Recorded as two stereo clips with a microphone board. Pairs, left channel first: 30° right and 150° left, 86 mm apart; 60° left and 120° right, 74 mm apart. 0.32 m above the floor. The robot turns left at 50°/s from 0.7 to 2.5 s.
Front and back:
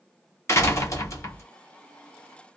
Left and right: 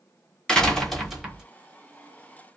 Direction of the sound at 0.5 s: 15° right.